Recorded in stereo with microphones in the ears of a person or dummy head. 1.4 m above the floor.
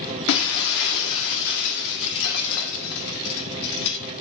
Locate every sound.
0.3 s breaking glass: 65° left (ahead or behind), 1.7 m